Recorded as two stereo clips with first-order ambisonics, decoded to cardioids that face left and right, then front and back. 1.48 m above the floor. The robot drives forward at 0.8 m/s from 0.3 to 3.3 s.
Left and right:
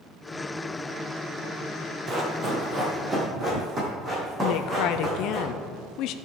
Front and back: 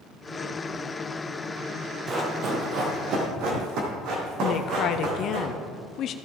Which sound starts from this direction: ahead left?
A woman speaking, at 4.4 s.